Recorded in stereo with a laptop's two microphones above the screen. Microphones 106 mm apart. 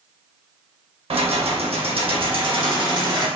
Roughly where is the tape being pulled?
No tape being pulled in this recording.